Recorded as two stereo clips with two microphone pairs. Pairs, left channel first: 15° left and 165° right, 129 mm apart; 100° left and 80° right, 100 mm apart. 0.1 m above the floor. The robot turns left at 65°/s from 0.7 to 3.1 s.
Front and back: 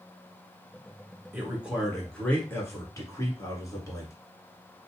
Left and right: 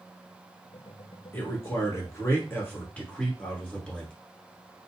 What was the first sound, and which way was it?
A man speaking, 140° left.